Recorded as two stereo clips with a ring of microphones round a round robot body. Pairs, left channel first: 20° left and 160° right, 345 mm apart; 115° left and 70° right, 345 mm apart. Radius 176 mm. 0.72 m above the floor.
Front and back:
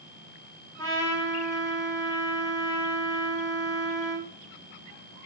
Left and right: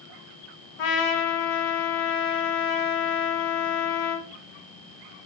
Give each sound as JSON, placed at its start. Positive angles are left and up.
{"t": 0.8, "sound": "a trumpet", "azimuth_deg": 105, "distance_m": 0.6}